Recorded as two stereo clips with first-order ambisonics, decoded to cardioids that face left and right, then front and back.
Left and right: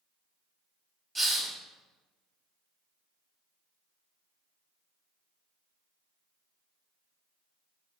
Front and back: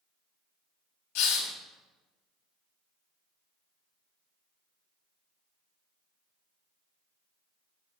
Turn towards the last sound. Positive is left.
turn(degrees=-15)